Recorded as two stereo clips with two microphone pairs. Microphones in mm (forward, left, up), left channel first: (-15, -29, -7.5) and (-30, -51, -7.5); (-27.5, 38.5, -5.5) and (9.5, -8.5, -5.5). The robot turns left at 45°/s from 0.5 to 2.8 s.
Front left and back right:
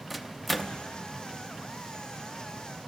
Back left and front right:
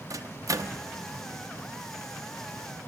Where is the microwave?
40° right, 0.5 m; by 0.8 s 55° right, 0.5 m.